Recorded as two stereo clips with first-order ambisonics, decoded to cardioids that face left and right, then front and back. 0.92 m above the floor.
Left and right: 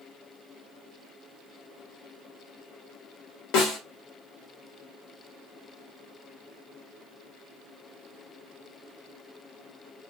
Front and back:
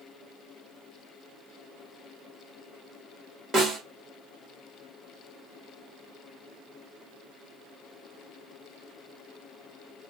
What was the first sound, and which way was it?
A snare drum, 105° left.